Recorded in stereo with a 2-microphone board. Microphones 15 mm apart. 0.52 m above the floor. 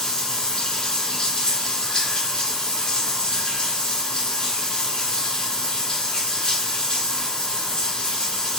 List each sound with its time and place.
0.0 s running water: 65° left (ahead or behind), 1.1 m